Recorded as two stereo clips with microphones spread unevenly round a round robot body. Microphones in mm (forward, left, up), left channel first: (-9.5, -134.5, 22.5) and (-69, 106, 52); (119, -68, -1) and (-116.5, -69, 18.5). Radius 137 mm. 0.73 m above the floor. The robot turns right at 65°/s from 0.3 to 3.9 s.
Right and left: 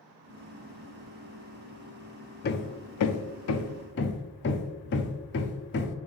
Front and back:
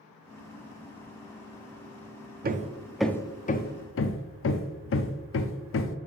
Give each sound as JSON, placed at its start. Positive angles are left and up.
{"t": 2.4, "sound": "hammering", "azimuth_deg": -125, "distance_m": 0.7}